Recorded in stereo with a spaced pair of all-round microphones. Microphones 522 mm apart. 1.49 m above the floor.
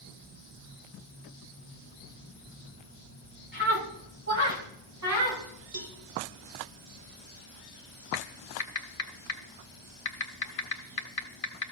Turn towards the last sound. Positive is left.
turn(degrees=85)